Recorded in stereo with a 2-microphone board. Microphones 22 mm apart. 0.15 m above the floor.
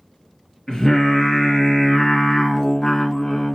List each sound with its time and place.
0.7 s singing: 30° left (ahead or behind), 1.9 m